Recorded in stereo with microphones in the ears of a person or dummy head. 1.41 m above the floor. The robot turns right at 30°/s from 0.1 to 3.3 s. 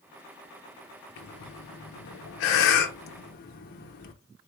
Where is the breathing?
60° left (ahead or behind), 0.7 m; by 4.1 s 45° left (ahead or behind), 0.7 m.